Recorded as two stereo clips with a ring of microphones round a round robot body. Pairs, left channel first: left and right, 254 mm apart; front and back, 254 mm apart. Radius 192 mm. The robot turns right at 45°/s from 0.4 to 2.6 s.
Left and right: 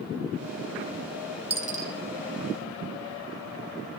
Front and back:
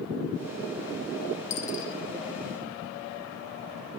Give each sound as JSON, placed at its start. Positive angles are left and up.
{"t": 1.5, "sound": "a dropped coin", "azimuth_deg": -40, "distance_m": 1.7}